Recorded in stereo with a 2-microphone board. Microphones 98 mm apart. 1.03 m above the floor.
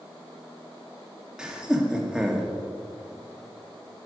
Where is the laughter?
10° right (ahead or behind), 1.8 m.